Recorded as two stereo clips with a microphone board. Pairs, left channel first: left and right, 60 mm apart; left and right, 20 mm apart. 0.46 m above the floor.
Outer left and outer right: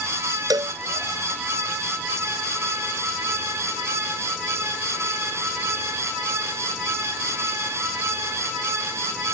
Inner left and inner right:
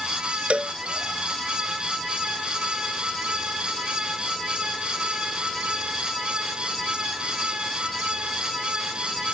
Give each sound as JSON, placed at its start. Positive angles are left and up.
{"t": 0.5, "sound": "a cowbell", "side_deg": -80}